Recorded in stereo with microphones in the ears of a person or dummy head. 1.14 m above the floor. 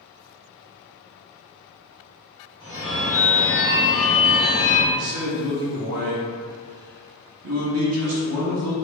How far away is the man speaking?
About 0.7 m.